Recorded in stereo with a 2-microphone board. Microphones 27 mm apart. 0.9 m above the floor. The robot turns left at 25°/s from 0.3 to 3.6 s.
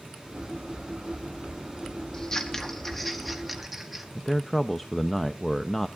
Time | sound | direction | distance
2.1 | scissors | 25° left (ahead or behind) | 1.5 m
4.2 | a man speaking | 10° left (ahead or behind) | 0.6 m